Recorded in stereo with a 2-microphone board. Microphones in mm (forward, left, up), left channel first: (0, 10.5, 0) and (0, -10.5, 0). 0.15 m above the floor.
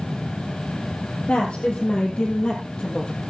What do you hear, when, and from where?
1.3 s a woman speaking: 60° left (ahead or behind), 3 m; by 3.1 s 40° left (ahead or behind), 3 m